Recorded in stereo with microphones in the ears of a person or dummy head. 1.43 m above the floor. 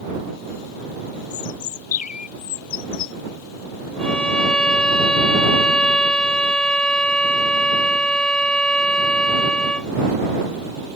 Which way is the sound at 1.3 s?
50° left (ahead or behind).